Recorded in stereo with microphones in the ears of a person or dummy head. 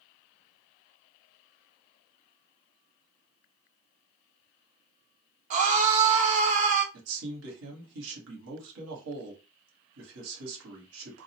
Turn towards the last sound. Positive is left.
turn(degrees=-80)